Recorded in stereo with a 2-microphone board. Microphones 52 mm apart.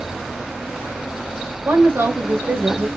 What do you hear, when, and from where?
1.6 s a woman speaking: 60° right (ahead or behind), 1.9 m; by 2.9 s 40° right (ahead or behind), 0.8 m